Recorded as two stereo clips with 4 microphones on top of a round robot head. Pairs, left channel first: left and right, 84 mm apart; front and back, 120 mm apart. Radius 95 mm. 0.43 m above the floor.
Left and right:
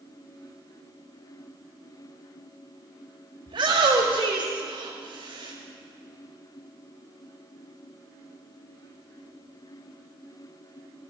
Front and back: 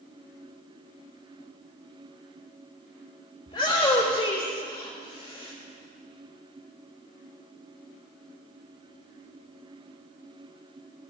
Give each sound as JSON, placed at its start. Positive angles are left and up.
{"t": 3.5, "sound": "a shout", "azimuth_deg": -55, "distance_m": 1.6}